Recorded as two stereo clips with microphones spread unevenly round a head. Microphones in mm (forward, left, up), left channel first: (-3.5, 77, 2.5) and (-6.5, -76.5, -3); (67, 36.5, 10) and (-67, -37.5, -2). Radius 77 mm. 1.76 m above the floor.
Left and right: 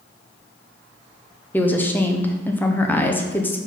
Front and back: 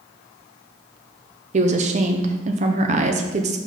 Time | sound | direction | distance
1.5 | a woman speaking | 165° left | 0.7 m